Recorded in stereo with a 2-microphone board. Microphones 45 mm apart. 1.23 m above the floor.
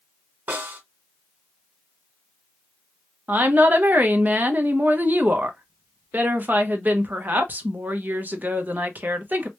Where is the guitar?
I don't hear a guitar.